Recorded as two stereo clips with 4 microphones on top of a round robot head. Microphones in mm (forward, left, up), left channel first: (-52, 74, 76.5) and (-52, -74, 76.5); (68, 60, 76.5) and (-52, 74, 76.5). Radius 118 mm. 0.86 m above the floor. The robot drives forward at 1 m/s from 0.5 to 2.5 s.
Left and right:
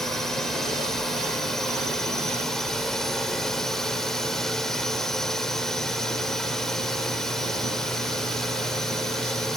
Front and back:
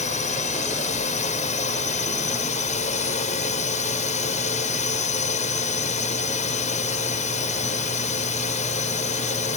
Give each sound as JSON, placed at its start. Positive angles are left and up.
{"t": 0.0, "sound": "a drone", "azimuth_deg": 0}